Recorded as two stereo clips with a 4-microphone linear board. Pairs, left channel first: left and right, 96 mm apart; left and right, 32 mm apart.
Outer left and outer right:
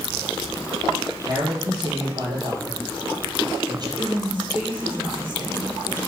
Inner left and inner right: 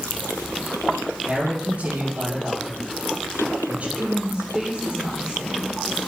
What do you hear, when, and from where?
1.3 s a man speaking: 40° right (ahead or behind), 4.5 m
4.0 s a woman speaking: 20° right (ahead or behind), 6 m